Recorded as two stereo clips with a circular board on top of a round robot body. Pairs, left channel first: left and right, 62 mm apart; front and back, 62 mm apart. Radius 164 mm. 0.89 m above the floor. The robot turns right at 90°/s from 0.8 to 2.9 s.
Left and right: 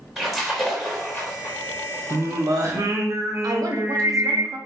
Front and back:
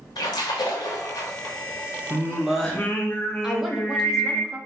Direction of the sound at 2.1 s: 130° right.